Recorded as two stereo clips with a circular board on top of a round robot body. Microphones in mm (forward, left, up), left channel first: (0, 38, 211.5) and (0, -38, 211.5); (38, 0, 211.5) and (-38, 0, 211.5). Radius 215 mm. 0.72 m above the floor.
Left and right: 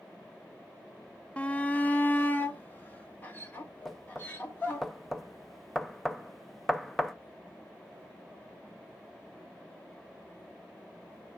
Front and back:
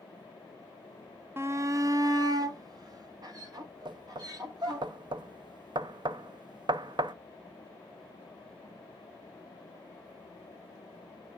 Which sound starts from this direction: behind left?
A shout, at 1.4 s.